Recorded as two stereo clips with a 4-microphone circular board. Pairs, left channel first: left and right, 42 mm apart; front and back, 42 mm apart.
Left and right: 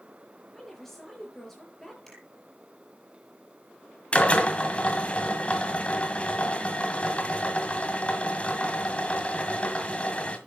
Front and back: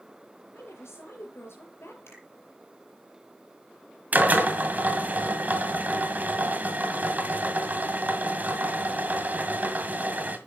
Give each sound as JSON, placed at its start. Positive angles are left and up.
{"t": 0.5, "sound": "a woman speaking", "azimuth_deg": 10, "distance_m": 6.0}
{"t": 2.1, "sound": "a finger snap", "azimuth_deg": 10, "distance_m": 7.5}
{"t": 4.1, "sound": "a drill", "azimuth_deg": 145, "distance_m": 1.9}